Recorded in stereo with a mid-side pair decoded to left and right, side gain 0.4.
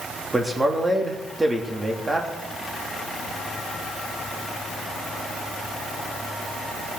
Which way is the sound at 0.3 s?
20° right.